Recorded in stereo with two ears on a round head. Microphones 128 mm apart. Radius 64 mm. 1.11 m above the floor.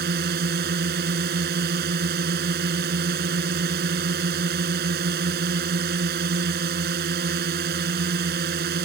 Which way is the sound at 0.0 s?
80° right.